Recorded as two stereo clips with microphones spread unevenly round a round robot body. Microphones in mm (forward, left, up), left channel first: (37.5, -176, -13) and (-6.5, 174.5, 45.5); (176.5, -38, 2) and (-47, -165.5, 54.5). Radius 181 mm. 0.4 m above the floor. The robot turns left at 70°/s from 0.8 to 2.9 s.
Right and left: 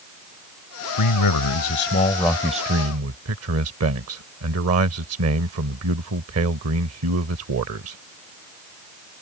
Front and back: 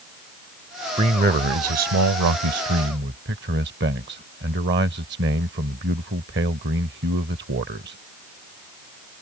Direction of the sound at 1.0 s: 75° right.